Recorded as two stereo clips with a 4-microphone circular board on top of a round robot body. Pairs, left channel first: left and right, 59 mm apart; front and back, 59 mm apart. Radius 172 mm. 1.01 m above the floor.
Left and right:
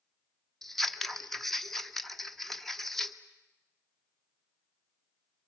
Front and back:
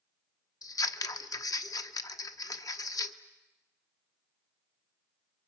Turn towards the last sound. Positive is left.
turn(degrees=5)